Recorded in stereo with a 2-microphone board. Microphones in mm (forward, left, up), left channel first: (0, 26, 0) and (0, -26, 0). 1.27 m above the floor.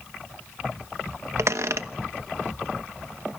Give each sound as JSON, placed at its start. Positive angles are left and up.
{"t": 1.4, "sound": "a squeak", "side_deg": -70, "distance_m": 1.0}